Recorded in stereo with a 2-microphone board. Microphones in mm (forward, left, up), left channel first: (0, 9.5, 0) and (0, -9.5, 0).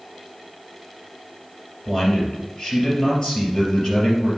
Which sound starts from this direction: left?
A man speaking, at 1.9 s.